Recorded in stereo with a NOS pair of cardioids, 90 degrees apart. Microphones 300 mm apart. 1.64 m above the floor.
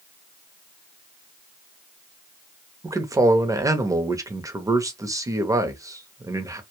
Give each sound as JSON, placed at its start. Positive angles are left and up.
{"t": 2.8, "sound": "a man speaking", "azimuth_deg": -10, "distance_m": 0.7}